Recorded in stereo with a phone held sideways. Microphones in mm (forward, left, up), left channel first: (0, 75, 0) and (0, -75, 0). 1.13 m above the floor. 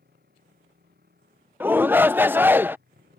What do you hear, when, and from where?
0.0 s a motorcycle: 85° right; by 3.2 s 90° right
1.6 s a shout: 15° right (ahead or behind)